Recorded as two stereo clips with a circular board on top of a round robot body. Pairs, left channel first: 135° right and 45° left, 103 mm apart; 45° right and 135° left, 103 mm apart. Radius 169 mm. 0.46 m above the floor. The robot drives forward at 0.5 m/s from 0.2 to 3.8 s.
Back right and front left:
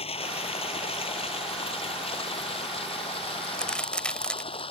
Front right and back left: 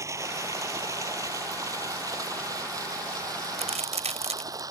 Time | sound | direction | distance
0.0 | running water | 165° right | ?
3.4 | a crack | 140° left | ?